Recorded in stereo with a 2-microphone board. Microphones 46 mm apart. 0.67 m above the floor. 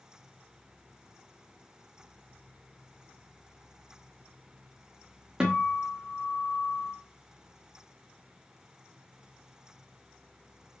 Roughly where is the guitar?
Centre.